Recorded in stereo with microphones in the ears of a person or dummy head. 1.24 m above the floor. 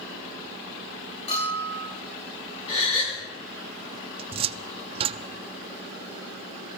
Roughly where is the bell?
Left.